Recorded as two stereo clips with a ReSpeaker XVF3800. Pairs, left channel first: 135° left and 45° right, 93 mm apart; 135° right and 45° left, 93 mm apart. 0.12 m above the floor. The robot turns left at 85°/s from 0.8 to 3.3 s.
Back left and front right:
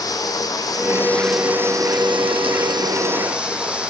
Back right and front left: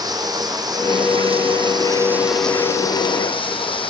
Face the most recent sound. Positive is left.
turn(degrees=-125)